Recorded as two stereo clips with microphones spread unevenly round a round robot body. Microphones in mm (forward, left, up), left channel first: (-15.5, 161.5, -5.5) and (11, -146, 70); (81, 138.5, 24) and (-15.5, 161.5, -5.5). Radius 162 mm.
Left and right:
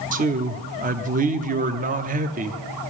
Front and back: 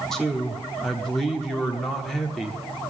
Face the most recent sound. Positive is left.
turn(degrees=-140)